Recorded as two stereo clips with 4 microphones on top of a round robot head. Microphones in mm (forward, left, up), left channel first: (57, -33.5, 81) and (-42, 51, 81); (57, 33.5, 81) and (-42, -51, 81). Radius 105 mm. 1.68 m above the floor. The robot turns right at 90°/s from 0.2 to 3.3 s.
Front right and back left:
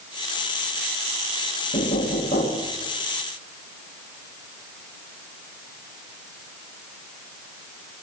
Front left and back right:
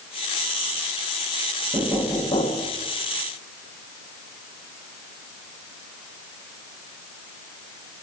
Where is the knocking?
75° right, 1.1 m; by 2.7 s 20° left, 1.1 m.